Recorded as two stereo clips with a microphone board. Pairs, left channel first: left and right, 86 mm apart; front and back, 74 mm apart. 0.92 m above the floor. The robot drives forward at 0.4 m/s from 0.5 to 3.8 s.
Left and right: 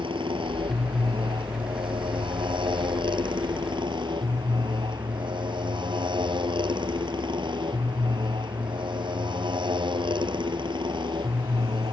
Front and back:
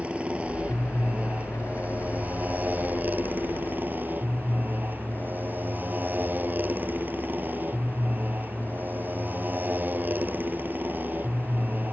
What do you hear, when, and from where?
0.0 s a motorcycle: 105° right; by 11.9 s 115° right